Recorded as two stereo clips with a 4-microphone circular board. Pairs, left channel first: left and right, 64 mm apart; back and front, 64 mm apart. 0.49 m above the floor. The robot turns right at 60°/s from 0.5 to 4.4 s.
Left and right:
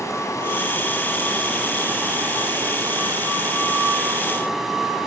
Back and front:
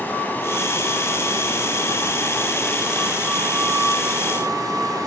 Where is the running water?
120° left, 1.1 m; by 5.1 s 5° right, 1.1 m.